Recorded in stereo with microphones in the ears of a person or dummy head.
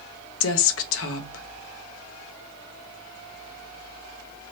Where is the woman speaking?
75° left (ahead or behind), 0.8 m.